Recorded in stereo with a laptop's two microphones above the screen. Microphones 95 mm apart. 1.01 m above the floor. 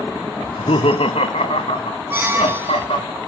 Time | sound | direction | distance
0.4 | laughter | 60° left (ahead or behind) | 0.5 m
2.1 | a squeak | 25° right (ahead or behind) | 1.3 m